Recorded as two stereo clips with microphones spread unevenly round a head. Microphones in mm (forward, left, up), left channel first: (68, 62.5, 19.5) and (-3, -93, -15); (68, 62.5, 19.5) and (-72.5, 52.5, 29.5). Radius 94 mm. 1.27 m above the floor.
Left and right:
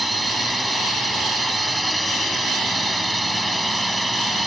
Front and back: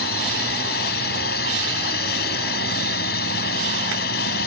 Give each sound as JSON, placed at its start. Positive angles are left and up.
{"t": 0.0, "sound": "a drone", "azimuth_deg": -25}